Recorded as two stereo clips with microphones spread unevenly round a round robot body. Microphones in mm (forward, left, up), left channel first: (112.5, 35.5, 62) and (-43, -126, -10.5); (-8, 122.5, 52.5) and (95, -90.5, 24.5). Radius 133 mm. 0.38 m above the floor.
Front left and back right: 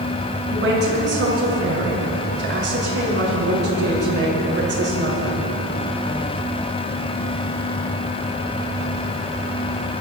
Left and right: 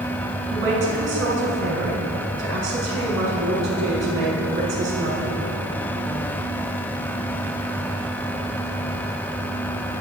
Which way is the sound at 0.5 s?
105° right.